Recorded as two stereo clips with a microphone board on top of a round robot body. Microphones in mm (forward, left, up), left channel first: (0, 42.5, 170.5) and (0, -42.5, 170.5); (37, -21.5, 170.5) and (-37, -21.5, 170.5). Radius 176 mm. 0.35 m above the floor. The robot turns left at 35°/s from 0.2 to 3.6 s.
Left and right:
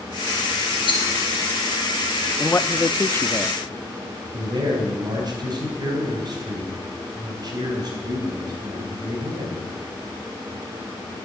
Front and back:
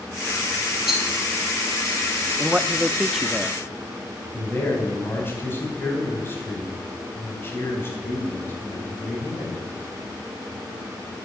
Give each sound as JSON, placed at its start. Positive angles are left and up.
{"t": 0.9, "sound": "a rattle", "azimuth_deg": 95, "distance_m": 3.0}
{"t": 2.4, "sound": "a man speaking", "azimuth_deg": 120, "distance_m": 0.8}
{"t": 4.3, "sound": "a man speaking", "azimuth_deg": -60, "distance_m": 4.5}